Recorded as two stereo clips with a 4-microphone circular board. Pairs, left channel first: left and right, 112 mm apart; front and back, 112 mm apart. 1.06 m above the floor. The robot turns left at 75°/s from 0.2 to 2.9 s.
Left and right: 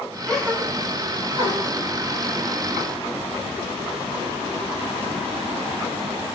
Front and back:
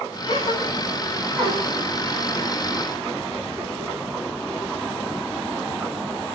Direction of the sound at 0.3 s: 5° left.